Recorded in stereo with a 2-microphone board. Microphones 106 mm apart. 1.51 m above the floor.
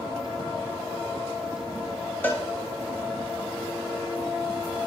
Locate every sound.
2.2 s a cowbell: 20° left (ahead or behind), 2 m